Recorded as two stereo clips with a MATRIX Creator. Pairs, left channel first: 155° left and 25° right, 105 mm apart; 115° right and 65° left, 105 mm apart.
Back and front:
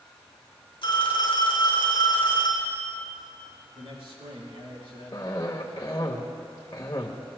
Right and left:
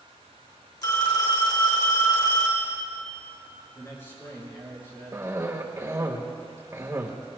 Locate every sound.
0.8 s a phone ringing: 160° right, 3 m
3.8 s a man speaking: 50° right, 5.5 m
5.1 s a cough: 115° left, 1.2 m